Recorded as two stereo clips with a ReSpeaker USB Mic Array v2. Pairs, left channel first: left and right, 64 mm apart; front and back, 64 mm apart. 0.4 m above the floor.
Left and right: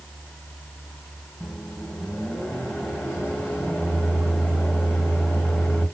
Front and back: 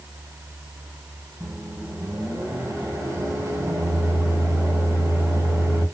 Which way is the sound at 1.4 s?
175° right.